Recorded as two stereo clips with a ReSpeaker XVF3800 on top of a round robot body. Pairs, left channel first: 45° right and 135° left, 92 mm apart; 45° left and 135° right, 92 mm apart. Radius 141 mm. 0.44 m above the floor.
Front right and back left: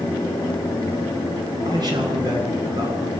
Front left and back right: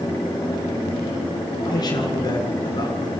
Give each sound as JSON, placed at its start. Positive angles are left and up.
{"t": 1.6, "sound": "a man speaking", "azimuth_deg": 90, "distance_m": 9.0}